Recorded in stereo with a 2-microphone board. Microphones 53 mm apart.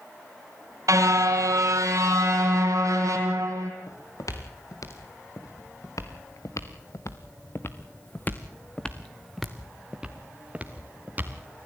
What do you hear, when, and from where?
0.9 s a car horn: 80° right, 3 m
3.9 s footsteps: 90° left, 3.5 m; by 11.7 s 35° right (ahead or behind), 2.5 m